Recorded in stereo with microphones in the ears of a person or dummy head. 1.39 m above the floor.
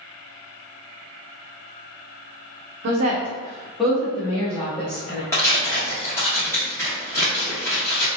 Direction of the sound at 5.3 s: 10° left (ahead or behind).